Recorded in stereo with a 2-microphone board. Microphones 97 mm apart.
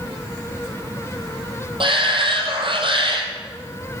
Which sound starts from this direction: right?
A shout, at 1.8 s.